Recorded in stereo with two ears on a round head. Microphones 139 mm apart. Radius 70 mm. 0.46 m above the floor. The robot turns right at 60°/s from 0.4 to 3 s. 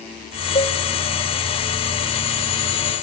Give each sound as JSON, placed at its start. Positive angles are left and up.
{"t": 0.6, "sound": "a cowbell", "side_deg": 35, "distance_m": 1.2}